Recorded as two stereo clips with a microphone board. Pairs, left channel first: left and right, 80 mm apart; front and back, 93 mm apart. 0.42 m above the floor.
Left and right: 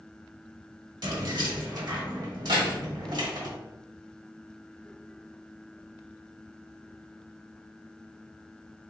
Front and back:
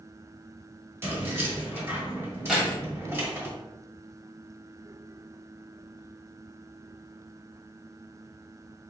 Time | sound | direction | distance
1.0 | keys jangling | 115° right | 1.3 m
2.5 | keys jangling | 95° right | 1.4 m